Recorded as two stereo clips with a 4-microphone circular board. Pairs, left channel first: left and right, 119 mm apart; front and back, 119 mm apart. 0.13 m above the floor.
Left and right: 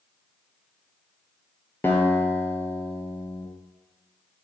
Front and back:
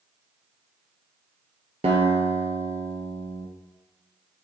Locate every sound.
1.8 s a guitar: 160° left, 0.6 m